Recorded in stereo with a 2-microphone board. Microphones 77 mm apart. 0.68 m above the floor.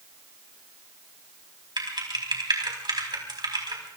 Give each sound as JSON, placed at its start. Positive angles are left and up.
{"t": 1.8, "sound": "typing on a keyboard", "side_deg": -80, "distance_m": 4.0}